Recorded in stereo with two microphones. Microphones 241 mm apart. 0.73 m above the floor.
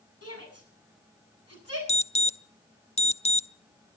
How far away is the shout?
About 8 m.